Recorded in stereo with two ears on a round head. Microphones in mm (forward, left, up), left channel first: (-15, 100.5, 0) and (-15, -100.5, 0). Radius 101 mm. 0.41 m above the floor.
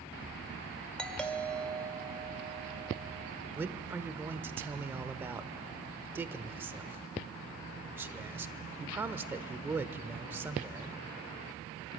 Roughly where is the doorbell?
Centre.